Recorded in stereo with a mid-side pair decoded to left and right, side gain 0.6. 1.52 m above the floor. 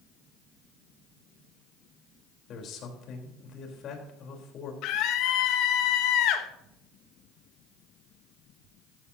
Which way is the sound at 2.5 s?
55° left.